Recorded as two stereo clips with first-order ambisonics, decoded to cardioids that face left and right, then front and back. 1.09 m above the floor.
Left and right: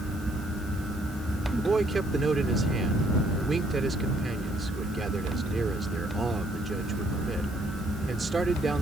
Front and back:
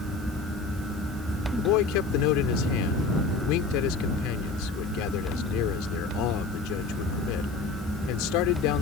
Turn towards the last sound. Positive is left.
turn(degrees=-15)